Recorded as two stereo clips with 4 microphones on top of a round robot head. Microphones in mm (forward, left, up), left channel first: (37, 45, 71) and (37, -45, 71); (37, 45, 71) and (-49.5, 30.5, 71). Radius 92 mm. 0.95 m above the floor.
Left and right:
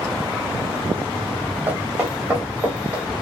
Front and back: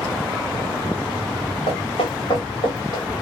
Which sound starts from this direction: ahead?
Footsteps, at 1.7 s.